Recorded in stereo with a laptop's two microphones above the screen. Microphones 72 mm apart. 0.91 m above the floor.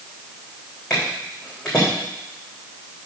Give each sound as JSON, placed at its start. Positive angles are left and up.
{"t": 0.9, "sound": "footsteps", "side_deg": 10, "distance_m": 4.0}